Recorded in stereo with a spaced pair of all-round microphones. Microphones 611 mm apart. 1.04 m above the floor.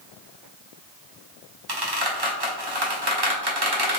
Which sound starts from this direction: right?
A squeak, at 1.7 s.